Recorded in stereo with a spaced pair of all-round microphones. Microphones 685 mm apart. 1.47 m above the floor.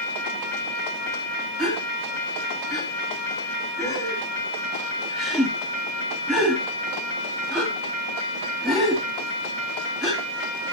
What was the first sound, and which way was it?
A gasp, centre (ahead or behind).